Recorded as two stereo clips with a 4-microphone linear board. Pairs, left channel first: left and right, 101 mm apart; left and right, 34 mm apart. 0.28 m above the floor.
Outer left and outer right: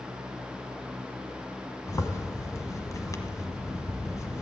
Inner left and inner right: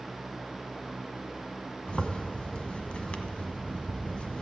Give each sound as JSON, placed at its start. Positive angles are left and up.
{"t": 1.9, "sound": "a zipper", "side_deg": 35, "distance_m": 1.1}